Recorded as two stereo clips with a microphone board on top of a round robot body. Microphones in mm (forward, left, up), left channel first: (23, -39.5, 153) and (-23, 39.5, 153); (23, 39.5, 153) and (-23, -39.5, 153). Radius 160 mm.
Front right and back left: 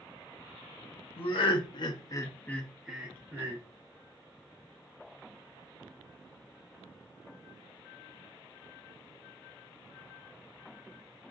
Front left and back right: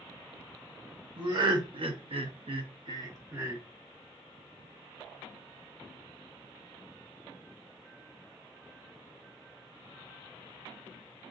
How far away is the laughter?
About 1.1 m.